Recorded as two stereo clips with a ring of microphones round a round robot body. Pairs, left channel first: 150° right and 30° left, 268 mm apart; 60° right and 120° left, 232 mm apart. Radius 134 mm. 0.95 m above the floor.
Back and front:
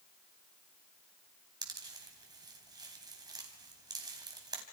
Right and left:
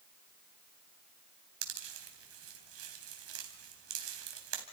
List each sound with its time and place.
1.6 s a pop: 105° left, 3.5 m